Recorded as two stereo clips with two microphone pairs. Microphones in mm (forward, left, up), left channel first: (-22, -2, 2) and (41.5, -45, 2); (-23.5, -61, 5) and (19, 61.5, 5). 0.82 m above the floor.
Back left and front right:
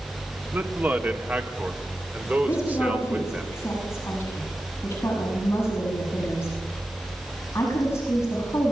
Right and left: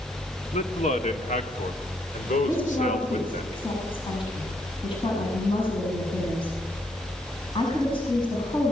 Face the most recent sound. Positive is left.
turn(degrees=-160)